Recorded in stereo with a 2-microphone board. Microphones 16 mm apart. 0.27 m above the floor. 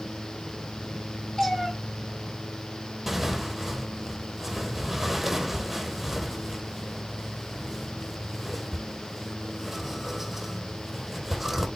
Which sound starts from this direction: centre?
Tearing paper, at 3.1 s.